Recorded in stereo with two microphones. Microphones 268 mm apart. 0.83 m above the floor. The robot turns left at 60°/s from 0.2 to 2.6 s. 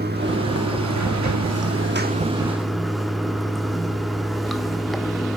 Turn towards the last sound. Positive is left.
turn(degrees=180)